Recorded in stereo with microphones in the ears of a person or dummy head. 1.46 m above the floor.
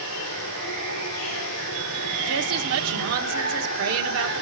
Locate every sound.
0.0 s running water: 80° left, 3 m
2.3 s a woman speaking: 80° right, 1.2 m